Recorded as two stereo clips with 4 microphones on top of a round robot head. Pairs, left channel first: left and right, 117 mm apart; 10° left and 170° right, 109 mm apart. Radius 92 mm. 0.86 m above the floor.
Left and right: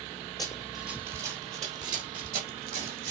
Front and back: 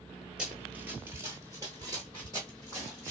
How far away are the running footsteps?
About 0.9 m.